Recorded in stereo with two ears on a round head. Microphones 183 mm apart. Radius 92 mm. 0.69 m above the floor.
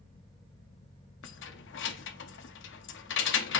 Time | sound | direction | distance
1.2 | keys jangling | 60° left (ahead or behind) | 0.5 m